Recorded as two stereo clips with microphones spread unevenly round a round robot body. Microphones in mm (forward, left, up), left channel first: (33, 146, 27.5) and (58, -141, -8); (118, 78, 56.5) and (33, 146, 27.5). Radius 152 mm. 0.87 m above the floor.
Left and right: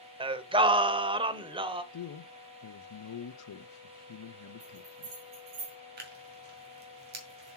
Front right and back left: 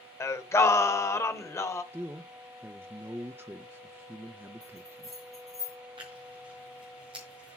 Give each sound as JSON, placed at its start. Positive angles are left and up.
{"t": 0.2, "sound": "singing", "azimuth_deg": -10, "distance_m": 0.7}
{"t": 1.9, "sound": "a man speaking", "azimuth_deg": 90, "distance_m": 0.8}
{"t": 4.6, "sound": "a bell", "azimuth_deg": -115, "distance_m": 4.5}
{"t": 6.0, "sound": "tearing paper", "azimuth_deg": -145, "distance_m": 1.9}